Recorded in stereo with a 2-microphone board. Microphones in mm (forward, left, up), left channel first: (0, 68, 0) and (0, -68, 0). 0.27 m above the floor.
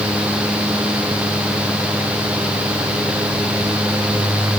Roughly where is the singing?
I don't hear singing.